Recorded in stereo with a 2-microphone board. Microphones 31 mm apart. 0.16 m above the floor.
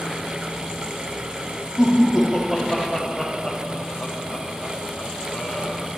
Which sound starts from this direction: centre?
Laughter, at 1.8 s.